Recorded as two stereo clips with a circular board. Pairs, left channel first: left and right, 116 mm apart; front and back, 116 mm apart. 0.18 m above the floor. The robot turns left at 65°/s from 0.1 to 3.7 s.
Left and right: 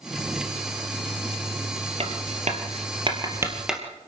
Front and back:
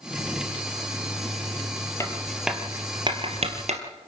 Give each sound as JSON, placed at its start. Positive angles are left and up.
{"t": 2.0, "sound": "writing", "azimuth_deg": -65, "distance_m": 3.0}